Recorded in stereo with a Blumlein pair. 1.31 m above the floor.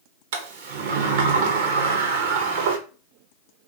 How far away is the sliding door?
About 0.8 m.